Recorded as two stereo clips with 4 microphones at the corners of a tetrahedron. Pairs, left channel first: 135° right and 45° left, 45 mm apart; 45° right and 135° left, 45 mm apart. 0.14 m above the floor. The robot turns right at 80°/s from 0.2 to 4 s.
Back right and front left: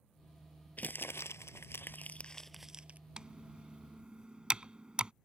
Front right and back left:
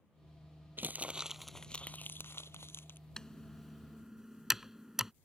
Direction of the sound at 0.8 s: 175° left.